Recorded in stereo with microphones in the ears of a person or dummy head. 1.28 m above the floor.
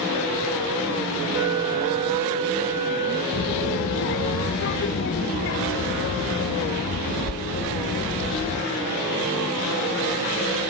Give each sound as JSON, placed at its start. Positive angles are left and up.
{"t": 1.3, "sound": "a flute", "side_deg": -15, "distance_m": 1.4}
{"t": 3.3, "sound": "a child speaking", "side_deg": 55, "distance_m": 0.8}